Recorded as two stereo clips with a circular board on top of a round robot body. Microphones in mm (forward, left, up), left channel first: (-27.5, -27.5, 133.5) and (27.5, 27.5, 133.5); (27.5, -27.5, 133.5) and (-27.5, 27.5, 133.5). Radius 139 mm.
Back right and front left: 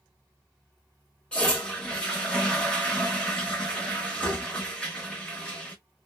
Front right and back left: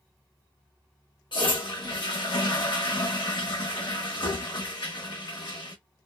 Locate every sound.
1.3 s a toilet flushing: 55° right, 1.1 m